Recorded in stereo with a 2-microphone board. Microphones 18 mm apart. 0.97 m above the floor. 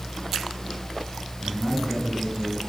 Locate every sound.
1.4 s a man speaking: 25° left (ahead or behind), 8.5 m